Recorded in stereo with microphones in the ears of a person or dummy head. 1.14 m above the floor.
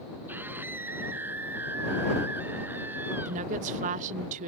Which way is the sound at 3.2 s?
40° right (ahead or behind).